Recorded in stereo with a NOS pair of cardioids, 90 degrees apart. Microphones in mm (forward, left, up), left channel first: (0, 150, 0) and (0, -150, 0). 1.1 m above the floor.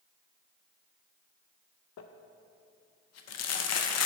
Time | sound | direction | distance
2.0 | crumpling | 55° left | 0.6 m